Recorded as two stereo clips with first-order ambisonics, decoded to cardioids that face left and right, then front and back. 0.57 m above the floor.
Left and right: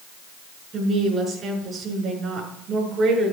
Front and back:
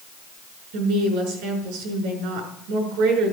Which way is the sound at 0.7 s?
160° right.